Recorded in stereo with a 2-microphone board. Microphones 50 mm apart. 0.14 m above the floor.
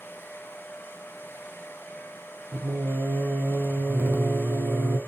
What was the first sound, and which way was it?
Singing, 50° right (ahead or behind).